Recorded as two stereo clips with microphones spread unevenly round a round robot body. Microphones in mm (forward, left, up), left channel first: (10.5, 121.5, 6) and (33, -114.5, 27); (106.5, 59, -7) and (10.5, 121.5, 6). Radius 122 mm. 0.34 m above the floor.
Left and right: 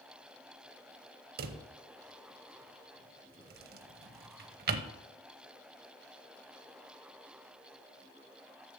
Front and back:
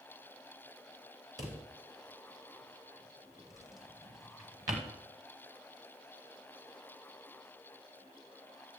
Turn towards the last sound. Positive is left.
turn(degrees=-135)